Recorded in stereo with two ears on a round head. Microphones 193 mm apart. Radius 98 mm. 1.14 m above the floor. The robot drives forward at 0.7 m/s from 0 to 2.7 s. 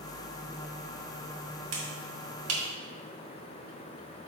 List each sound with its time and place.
1.7 s a finger snap: 65° right (ahead or behind), 1.7 m; by 2.6 s 80° right, 1.6 m